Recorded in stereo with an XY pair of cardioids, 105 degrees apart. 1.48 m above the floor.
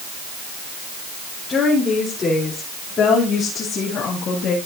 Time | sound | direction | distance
1.5 | a woman speaking | 40° left | 4.5 m